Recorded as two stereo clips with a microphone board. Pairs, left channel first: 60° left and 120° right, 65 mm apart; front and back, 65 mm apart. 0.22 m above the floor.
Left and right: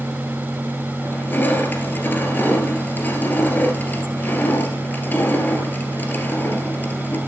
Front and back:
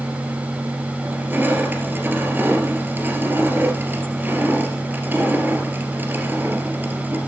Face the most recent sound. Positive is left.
turn(degrees=120)